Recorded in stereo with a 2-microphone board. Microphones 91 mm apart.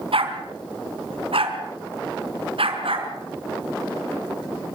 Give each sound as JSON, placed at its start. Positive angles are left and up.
{"t": 0.1, "sound": "a dog barking", "side_deg": -80, "distance_m": 4.5}